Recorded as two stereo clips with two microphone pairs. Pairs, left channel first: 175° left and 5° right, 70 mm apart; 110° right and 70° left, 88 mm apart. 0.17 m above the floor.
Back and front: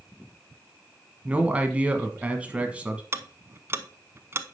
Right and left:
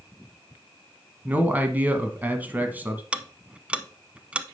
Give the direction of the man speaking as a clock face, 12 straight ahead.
11 o'clock.